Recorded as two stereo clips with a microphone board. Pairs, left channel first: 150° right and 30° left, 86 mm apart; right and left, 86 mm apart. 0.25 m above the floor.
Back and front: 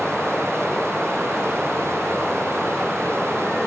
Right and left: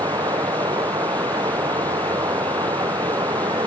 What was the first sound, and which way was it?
Running water, 125° left.